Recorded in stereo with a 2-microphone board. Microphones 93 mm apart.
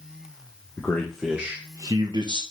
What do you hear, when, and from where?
0.8 s a man speaking: 15° left (ahead or behind), 0.7 m; by 2.4 s 60° right (ahead or behind), 0.7 m